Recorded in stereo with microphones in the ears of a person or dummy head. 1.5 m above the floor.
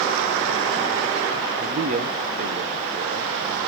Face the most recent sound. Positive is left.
turn(degrees=-40)  # may be behind; listen again after turning